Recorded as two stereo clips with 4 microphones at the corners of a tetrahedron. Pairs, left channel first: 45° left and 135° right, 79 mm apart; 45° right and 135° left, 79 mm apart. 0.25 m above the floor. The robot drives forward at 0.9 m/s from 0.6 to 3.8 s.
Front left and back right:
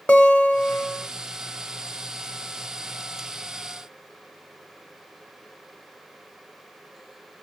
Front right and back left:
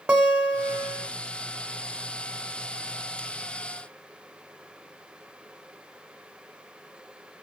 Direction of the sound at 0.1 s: 85° left.